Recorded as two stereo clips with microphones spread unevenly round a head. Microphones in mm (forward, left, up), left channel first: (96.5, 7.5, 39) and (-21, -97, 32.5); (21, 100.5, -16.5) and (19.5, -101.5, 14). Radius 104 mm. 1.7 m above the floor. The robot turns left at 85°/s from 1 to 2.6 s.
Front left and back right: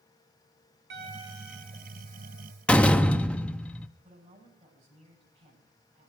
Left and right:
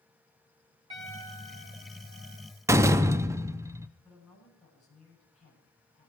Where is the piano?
155° right, 3 m; by 2.5 s 80° left, 3 m.